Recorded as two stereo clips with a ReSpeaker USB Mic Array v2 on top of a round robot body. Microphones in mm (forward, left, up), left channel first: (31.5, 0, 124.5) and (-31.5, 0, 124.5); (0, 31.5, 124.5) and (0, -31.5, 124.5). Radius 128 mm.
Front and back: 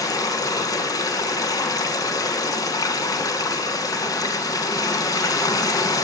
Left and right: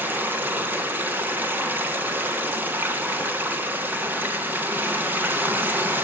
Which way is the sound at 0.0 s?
30° right.